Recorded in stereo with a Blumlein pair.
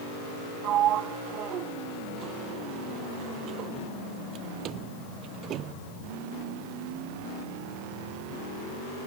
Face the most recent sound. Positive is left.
turn(degrees=-30)